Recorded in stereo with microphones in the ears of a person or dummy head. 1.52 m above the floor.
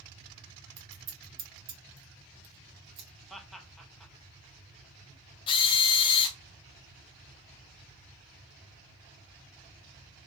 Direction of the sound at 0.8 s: 45° right (ahead or behind).